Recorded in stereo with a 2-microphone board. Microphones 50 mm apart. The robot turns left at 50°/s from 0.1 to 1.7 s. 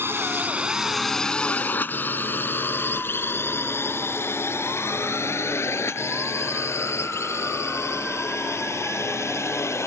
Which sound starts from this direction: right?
A drone, at 0.0 s.